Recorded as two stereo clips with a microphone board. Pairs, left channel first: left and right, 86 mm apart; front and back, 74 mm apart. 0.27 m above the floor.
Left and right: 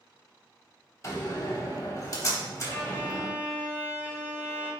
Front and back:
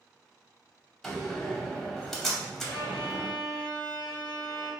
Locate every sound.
1.0 s a door slam: 80° left, 0.8 m
2.7 s a violin: 175° left, 1.5 m